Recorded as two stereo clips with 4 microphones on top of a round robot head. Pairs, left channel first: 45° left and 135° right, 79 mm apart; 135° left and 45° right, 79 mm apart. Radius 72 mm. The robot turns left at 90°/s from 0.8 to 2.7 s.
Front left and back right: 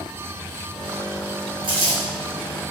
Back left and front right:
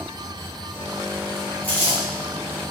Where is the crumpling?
150° right, 1.4 m; by 2.0 s straight behind, 1.4 m.